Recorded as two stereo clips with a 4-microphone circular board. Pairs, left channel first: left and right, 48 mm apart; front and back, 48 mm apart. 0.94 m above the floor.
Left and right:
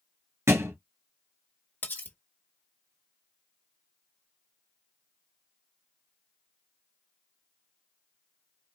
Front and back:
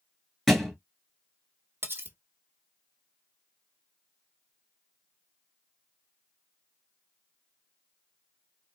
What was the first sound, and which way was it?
A thud, 85° right.